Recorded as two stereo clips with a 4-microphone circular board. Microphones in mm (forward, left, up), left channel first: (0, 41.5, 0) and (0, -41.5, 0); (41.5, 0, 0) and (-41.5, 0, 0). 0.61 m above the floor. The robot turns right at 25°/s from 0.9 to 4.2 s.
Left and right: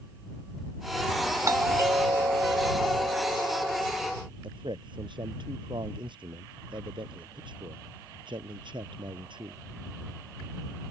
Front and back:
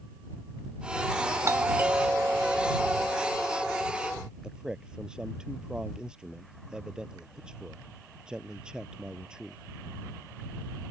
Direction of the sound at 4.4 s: 100° right.